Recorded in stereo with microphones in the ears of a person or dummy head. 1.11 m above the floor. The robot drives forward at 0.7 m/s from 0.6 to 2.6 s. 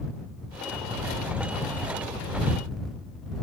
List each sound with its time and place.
Only background noise.